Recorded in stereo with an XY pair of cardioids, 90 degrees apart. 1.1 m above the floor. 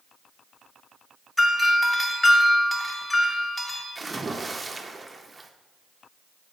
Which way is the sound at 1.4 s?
20° left.